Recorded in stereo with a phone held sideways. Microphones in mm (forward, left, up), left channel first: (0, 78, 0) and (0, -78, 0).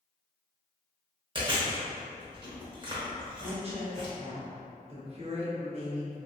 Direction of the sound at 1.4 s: 30° right (ahead or behind).